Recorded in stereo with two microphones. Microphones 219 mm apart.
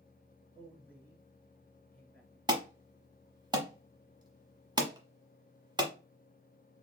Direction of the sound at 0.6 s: 10° left (ahead or behind).